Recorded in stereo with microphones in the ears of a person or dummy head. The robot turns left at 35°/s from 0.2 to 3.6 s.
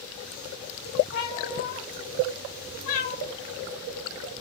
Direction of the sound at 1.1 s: 120° left.